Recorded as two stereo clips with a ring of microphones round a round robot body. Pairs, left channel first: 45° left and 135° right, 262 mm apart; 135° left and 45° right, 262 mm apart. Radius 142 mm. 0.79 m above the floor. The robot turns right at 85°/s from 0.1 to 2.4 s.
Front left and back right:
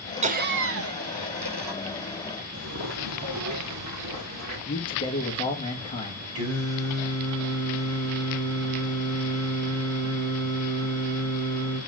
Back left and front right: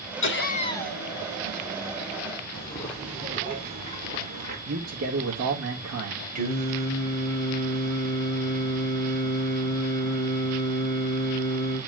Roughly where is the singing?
Right.